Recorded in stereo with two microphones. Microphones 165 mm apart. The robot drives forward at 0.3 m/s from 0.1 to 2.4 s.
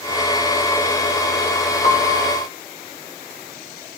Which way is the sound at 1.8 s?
35° left (ahead or behind).